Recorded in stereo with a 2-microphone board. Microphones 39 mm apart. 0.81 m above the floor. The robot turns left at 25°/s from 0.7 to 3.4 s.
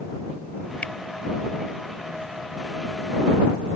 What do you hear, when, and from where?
0.8 s a finger snap: 35° left (ahead or behind); by 0.9 s 40° left (ahead or behind)